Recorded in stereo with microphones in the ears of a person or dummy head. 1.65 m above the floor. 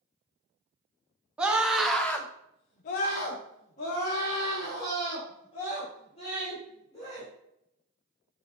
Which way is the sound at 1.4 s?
10° right (ahead or behind).